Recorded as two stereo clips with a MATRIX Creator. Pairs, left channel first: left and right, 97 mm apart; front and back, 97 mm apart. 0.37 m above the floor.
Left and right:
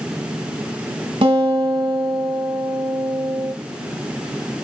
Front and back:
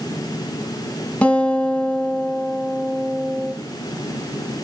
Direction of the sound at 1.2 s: 75° right.